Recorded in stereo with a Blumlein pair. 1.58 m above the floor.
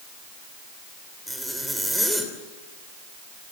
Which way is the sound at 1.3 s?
Straight ahead.